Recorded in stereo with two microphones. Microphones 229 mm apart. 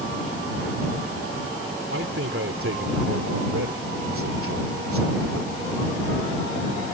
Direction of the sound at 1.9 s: 70° right (ahead or behind).